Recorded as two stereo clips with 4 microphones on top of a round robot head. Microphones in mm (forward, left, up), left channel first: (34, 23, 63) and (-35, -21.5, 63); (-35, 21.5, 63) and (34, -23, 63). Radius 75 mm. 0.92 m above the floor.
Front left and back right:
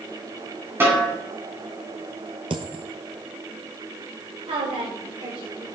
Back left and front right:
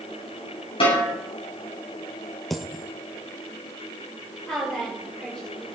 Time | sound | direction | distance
0.8 | a snare drum | 150° left | 8 m
2.5 | a dropped coin | 125° right | 1.2 m
4.5 | a woman speaking | 130° right | 4 m